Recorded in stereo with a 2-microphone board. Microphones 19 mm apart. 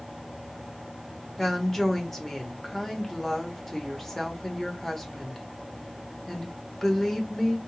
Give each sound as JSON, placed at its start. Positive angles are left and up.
{"t": 1.4, "sound": "a woman speaking", "side_deg": 20, "distance_m": 1.2}